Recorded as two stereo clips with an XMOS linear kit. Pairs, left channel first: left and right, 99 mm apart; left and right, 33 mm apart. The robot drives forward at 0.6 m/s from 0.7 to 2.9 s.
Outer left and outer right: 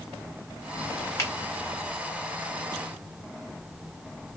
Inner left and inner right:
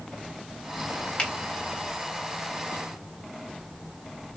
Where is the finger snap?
25° left (ahead or behind), 1.6 m; by 1.3 s 30° left (ahead or behind), 1.5 m.